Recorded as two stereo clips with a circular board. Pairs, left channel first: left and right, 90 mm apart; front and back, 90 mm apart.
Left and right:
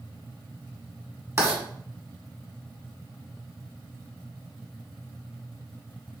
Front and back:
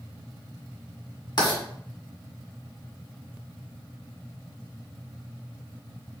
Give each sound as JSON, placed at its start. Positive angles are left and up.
{"t": 1.4, "sound": "writing", "azimuth_deg": -35, "distance_m": 1.7}